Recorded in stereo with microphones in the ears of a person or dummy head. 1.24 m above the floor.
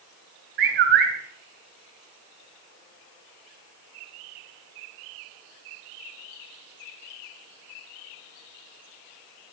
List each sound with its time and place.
0.6 s a bird: 60° right (ahead or behind), 3 m